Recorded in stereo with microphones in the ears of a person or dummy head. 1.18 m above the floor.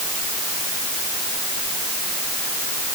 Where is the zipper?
No zipper in this recording.